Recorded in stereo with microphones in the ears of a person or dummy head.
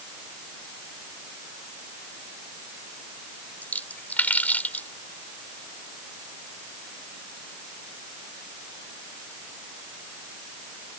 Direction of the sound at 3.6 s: 15° left (ahead or behind).